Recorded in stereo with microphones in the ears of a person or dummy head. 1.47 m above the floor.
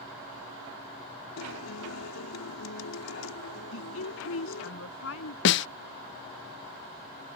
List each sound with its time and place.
1.4 s a guitar: 85° left
3.7 s a woman speaking: 75° left (ahead or behind)
5.5 s a snare drum: 60° left (ahead or behind)